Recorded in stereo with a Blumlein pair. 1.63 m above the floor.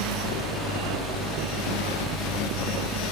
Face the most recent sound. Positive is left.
turn(degrees=5)